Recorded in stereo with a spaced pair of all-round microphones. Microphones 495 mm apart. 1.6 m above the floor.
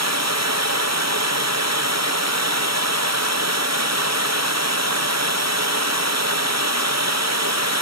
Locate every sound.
0.0 s running water: 30° right (ahead or behind), 0.8 m